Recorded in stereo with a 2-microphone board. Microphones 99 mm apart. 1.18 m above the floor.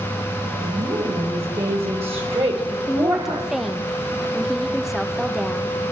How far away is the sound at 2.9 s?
About 1.1 m.